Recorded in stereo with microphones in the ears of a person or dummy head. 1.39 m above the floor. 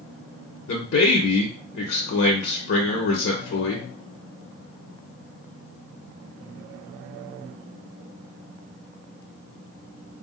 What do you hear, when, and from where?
0.7 s a man speaking: 60° left (ahead or behind), 0.8 m